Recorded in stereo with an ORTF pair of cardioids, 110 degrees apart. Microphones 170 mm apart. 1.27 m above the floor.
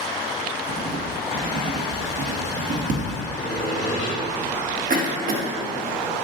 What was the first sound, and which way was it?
Writing, 45° right.